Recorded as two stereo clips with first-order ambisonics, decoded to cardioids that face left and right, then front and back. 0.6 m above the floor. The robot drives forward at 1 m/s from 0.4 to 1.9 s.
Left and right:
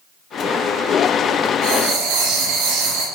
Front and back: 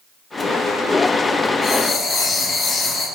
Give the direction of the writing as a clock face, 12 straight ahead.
2 o'clock.